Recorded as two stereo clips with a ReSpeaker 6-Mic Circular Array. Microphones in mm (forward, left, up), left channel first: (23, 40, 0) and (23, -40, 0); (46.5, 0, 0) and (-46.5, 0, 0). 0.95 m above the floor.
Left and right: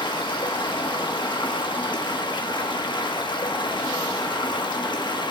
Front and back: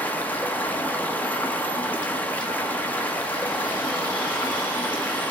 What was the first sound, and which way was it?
Running water, 70° left.